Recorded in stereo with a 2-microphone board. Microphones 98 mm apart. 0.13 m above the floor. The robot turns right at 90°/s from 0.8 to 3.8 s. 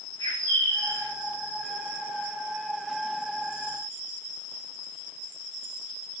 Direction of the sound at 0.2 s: 50° left (ahead or behind).